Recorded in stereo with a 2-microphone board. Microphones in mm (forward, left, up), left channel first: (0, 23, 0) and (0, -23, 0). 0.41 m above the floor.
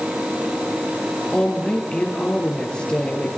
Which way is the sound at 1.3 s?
20° left (ahead or behind).